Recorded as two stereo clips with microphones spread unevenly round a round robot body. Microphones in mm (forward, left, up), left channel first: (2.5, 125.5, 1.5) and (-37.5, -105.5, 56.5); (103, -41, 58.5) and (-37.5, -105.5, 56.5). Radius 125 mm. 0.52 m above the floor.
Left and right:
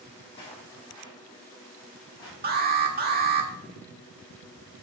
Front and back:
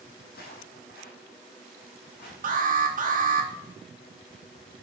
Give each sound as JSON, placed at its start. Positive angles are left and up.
{"t": 0.2, "sound": "footsteps", "azimuth_deg": 10, "distance_m": 1.7}
{"t": 2.4, "sound": "an alarm", "azimuth_deg": -155, "distance_m": 1.4}